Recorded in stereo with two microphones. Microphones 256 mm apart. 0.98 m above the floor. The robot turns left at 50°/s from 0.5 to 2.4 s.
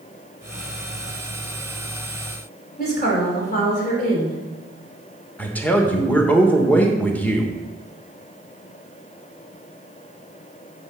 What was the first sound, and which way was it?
A woman speaking, 35° left (ahead or behind).